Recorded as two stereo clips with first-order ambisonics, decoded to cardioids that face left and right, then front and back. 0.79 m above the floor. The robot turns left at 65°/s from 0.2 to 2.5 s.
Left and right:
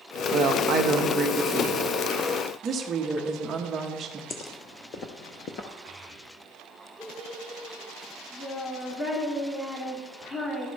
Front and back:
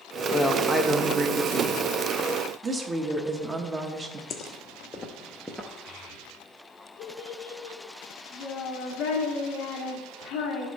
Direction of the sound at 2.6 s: 125° right.